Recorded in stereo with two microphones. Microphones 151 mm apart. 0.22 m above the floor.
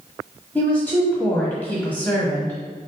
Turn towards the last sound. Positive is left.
turn(degrees=10)  # may be behind; listen again after turning